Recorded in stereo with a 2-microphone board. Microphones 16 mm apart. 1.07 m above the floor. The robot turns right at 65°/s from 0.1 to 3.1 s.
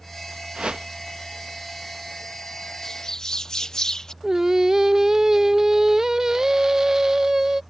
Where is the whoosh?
90° right; by 0.9 s 70° right (ahead or behind).